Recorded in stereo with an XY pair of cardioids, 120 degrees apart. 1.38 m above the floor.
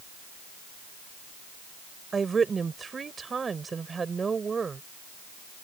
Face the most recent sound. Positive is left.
turn(degrees=-30)